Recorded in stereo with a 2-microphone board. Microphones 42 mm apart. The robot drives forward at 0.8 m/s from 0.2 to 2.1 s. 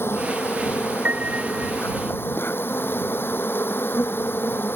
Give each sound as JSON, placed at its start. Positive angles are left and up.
{"t": 0.0, "sound": "an insect", "side_deg": 70}
{"t": 1.1, "sound": "a piano", "side_deg": -40}